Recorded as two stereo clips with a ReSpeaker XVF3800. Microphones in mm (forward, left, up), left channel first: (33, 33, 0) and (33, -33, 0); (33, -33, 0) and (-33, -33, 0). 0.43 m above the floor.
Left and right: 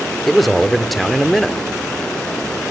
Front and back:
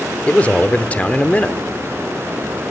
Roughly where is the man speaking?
Ahead.